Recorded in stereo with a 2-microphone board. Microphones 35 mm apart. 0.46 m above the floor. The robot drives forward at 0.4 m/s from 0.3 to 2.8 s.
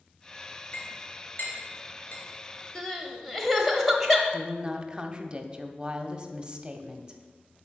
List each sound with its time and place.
0.7 s a clink: 60° left (ahead or behind), 4 m; by 2.2 s 55° left (ahead or behind), 4 m
2.8 s crying: 5° left (ahead or behind), 1.1 m
4.3 s a woman speaking: 25° right (ahead or behind), 0.8 m